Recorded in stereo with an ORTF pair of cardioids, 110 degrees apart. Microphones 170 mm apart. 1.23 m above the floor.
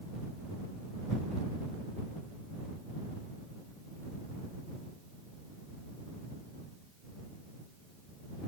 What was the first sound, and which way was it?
Only background noise.